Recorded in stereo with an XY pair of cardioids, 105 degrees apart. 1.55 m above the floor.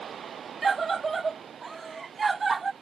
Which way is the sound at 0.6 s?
35° right.